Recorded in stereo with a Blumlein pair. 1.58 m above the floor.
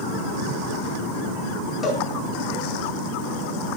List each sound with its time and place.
1.8 s a cowbell: 20° left, 4.5 m